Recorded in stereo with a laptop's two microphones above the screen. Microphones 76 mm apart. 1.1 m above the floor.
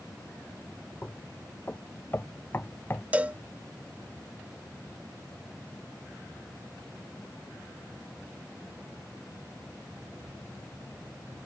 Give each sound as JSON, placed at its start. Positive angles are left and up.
{"t": 1.0, "sound": "knocking", "side_deg": 25}
{"t": 3.1, "sound": "a cowbell", "side_deg": -20}